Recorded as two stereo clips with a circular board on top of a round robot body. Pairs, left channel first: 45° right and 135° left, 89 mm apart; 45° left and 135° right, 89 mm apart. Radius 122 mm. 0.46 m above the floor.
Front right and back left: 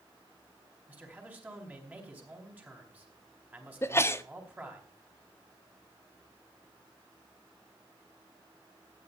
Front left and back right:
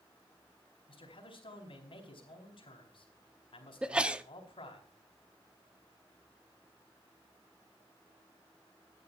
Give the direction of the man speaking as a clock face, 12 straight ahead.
10 o'clock.